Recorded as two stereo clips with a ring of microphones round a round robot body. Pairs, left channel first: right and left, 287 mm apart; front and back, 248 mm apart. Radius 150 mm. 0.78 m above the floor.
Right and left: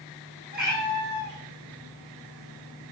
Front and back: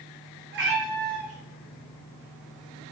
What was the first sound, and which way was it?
A cat meowing, 145° left.